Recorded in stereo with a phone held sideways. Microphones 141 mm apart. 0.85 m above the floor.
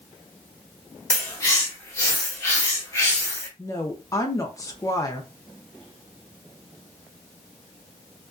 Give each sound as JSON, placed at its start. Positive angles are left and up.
{"t": 1.1, "sound": "a bird", "side_deg": 20, "distance_m": 0.8}
{"t": 3.6, "sound": "a woman speaking", "side_deg": 25, "distance_m": 0.5}